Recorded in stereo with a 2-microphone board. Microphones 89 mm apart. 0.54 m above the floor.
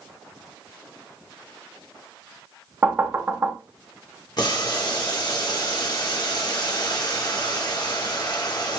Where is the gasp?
No gasp in this recording.